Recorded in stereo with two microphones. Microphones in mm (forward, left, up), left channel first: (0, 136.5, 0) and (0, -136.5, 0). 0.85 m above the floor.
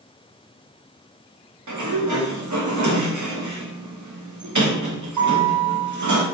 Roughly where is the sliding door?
Right.